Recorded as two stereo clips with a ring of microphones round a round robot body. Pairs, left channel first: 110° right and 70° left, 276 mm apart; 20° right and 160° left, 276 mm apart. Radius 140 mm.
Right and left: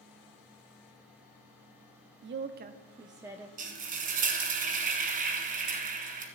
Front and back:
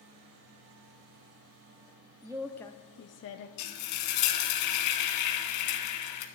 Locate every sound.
2.2 s a woman speaking: 90° left, 0.7 m; by 3.5 s 20° right, 0.8 m
3.6 s frying: 5° left, 1.5 m